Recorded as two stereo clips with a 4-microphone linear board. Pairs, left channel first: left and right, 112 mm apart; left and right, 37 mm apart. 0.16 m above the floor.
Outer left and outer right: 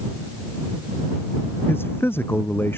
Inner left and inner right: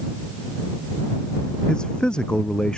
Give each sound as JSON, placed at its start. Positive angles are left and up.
{"t": 1.7, "sound": "a man speaking", "side_deg": 20}